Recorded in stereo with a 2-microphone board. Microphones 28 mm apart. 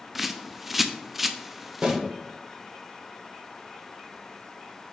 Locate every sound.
0.1 s a bird: 10° right (ahead or behind), 0.5 m
1.8 s a snare drum: 50° right (ahead or behind), 2.5 m